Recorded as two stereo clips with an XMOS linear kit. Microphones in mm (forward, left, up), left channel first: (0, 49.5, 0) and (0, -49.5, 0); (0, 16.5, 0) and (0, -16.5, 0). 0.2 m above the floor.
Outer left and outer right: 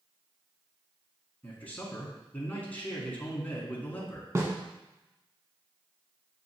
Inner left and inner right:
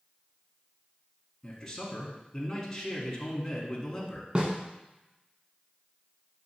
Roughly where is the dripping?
No dripping in this recording.